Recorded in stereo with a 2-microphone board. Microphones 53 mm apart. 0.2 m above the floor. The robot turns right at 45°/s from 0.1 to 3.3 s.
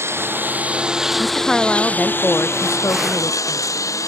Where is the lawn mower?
50° right; by 4.1 s 95° left.